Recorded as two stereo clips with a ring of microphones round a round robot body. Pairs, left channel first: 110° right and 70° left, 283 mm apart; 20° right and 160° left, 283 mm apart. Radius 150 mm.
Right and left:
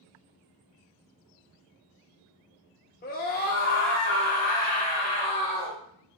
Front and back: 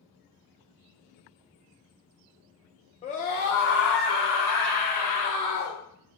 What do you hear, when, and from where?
3.0 s a scream: 80° right, 0.7 m; by 5.8 s 40° right, 2 m